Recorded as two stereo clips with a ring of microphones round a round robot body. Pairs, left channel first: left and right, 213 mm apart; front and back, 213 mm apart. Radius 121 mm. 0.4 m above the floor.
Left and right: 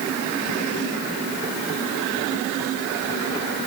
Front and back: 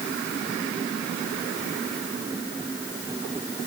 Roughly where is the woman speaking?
No woman speaking in this recording.